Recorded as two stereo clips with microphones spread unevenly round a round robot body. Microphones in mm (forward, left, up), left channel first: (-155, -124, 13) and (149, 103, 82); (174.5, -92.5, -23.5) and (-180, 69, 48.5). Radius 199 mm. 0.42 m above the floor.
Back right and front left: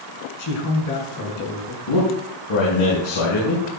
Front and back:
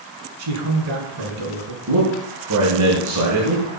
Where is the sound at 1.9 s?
160° right, 6 m.